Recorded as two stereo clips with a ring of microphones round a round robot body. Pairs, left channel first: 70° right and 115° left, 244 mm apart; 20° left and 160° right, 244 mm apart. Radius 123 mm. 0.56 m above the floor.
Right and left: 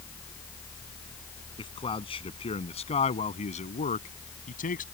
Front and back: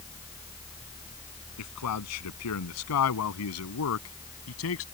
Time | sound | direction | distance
1.6 | a man speaking | 5° left | ?